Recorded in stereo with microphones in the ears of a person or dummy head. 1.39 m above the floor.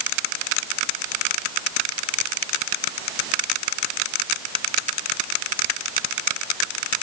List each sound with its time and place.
Only background noise.